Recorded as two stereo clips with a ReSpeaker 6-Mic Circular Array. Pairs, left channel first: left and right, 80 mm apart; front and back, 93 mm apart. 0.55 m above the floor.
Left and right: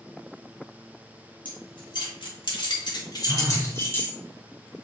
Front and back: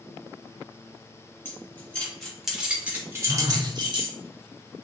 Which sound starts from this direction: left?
Keys jangling, at 1.4 s.